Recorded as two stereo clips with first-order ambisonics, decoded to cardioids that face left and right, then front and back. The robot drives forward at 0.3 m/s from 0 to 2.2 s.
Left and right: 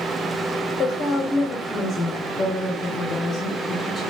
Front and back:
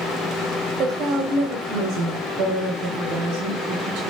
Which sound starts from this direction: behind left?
A woman speaking, at 0.8 s.